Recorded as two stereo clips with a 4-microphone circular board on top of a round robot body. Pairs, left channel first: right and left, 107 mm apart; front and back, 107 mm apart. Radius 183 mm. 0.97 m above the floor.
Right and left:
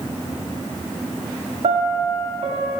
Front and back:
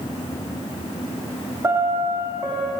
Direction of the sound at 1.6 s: 115° left.